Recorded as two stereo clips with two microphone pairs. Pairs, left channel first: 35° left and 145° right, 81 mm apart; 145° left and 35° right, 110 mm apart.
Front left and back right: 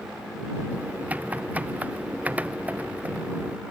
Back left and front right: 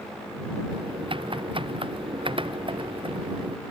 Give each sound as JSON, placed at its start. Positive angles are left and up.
{"t": 0.7, "sound": "typing on a keyboard", "azimuth_deg": -75}